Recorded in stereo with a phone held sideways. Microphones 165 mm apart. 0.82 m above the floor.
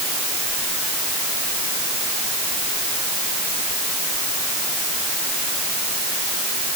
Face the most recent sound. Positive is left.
No sound to turn to.